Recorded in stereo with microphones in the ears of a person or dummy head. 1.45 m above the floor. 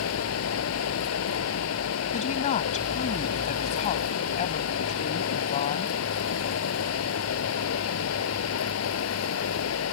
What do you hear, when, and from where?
0.0 s running water: 85° left
2.1 s a woman speaking: 40° left (ahead or behind)